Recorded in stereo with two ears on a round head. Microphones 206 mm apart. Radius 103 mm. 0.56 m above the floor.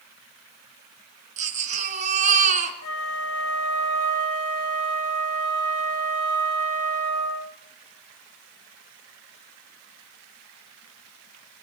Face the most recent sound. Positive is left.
turn(degrees=75)  # may be behind; listen again after turning